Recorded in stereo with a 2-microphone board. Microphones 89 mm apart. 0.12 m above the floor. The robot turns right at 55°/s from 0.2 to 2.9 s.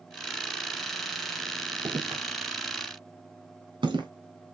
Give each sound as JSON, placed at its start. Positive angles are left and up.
{"t": 1.9, "sound": "footsteps", "side_deg": -85, "distance_m": 3.0}